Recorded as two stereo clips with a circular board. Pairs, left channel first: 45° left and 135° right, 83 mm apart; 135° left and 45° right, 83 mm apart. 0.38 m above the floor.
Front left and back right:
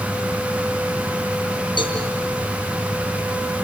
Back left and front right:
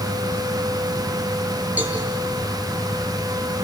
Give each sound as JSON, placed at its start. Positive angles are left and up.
{"t": 1.8, "sound": "a cowbell", "azimuth_deg": 25, "distance_m": 6.5}